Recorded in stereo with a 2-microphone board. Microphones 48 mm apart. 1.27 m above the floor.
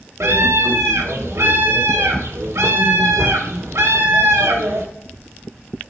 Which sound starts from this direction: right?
A scream, at 0.2 s.